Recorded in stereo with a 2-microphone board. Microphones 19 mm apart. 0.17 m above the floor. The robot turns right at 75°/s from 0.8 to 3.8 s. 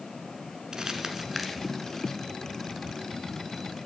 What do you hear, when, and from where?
0.7 s crumpling: 40° right (ahead or behind), 1.2 m; by 2.2 s 40° left (ahead or behind), 1.2 m